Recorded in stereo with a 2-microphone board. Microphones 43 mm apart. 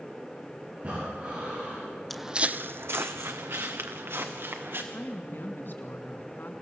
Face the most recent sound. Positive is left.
turn(degrees=60)  # may be behind; listen again after turning